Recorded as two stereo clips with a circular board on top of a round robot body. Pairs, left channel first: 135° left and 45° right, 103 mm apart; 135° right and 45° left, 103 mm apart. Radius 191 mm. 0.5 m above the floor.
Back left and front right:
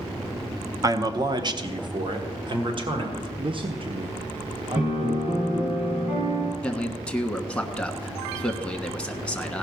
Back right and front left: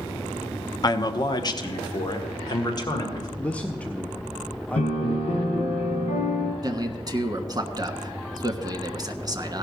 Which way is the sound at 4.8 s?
115° right.